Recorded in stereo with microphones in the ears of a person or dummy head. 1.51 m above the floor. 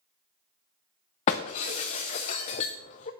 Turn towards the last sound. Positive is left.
turn(degrees=20)  # may be behind; listen again after turning